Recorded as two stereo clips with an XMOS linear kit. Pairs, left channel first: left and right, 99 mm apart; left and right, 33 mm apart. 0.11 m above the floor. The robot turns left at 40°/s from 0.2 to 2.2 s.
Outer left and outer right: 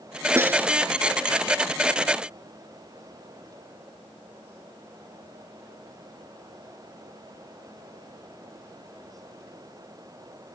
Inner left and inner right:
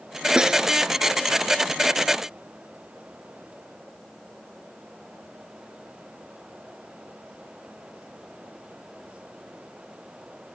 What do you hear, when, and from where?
0.4 s a snare drum: 25° right (ahead or behind); by 0.7 s 20° right (ahead or behind)